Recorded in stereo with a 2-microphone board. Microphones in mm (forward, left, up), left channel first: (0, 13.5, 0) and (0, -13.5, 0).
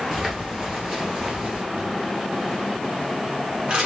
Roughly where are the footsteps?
Centre.